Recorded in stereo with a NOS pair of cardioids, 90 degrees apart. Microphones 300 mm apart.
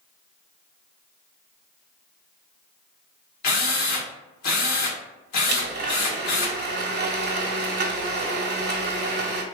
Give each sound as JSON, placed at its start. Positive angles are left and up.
{"t": 3.4, "sound": "a drill", "azimuth_deg": 70, "distance_m": 1.5}
{"t": 5.5, "sound": "a blender", "azimuth_deg": -35, "distance_m": 0.9}